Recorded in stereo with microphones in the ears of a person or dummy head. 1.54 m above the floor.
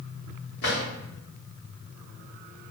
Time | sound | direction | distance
0.6 | a drawer | 55° left (ahead or behind) | 1.7 m